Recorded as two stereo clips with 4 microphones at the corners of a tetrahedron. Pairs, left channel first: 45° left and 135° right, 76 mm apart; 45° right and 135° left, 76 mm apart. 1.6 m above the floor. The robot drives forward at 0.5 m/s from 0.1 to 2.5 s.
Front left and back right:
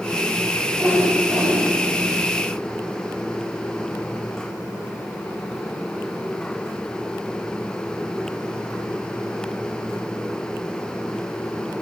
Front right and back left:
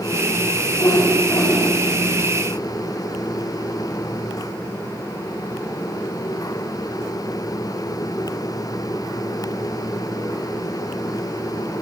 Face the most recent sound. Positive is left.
turn(degrees=-95)